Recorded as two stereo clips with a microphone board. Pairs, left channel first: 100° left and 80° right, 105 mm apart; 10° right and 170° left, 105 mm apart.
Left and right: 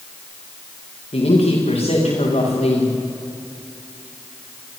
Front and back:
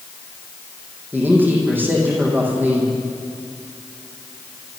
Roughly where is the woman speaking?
Left.